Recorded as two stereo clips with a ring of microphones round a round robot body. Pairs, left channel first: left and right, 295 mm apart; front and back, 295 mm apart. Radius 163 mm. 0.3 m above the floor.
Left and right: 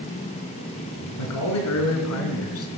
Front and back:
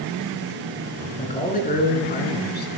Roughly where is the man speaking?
Ahead left.